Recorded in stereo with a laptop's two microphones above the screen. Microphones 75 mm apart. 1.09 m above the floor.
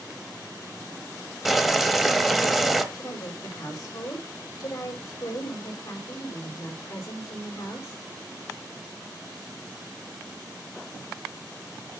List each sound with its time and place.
1.4 s boiling: centre (ahead or behind), 0.9 m
2.9 s a woman speaking: 50° left (ahead or behind), 4 m